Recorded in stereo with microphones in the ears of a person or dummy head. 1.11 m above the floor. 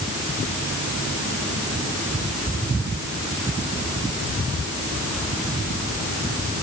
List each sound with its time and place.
Only background noise.